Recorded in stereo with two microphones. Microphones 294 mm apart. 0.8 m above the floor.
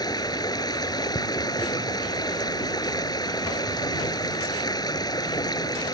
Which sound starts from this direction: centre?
Running water, at 0.0 s.